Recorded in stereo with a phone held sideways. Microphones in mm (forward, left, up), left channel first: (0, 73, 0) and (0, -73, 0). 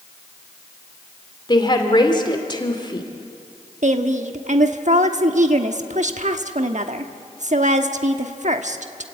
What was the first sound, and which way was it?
A woman speaking, 30° left (ahead or behind).